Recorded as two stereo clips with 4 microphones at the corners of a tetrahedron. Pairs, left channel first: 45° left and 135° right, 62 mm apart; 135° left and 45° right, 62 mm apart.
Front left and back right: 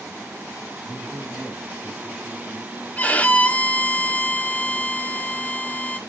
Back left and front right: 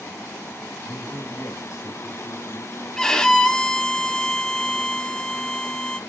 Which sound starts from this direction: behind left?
A man speaking, at 0.8 s.